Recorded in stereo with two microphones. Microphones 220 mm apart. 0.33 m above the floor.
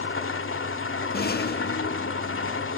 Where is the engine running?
65° left (ahead or behind), 1.0 m.